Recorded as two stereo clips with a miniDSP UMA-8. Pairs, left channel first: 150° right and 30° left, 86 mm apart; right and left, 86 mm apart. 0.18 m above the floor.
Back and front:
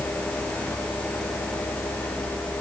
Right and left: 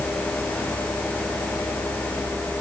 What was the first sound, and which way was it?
Only background noise.